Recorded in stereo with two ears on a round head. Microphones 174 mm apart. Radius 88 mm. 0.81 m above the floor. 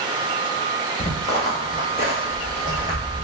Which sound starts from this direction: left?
Footsteps, at 1.0 s.